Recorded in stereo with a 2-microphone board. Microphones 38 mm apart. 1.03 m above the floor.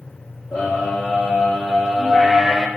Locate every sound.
0.5 s a scream: 55° left (ahead or behind), 3 m; by 2.7 s 10° right (ahead or behind), 1.6 m